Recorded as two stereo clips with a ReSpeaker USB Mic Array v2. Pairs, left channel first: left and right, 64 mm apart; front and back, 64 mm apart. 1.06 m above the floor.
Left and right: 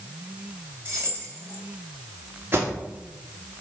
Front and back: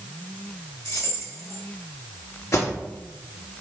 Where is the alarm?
40° right, 3.5 m.